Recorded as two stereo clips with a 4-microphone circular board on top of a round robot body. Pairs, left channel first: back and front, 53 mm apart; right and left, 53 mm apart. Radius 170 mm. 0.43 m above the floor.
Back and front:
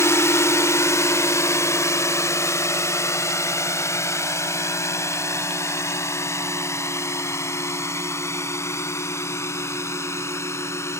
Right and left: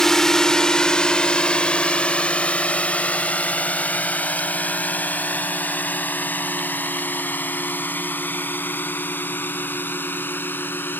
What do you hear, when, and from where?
0.0 s a drone: 170° right; by 11.0 s 145° right